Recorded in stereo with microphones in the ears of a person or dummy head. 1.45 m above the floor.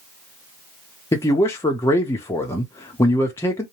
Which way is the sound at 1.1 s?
10° left (ahead or behind).